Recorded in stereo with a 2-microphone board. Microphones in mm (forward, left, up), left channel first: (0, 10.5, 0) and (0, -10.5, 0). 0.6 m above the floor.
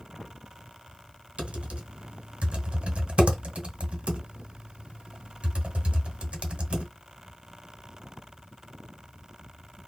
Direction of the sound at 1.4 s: 90° right.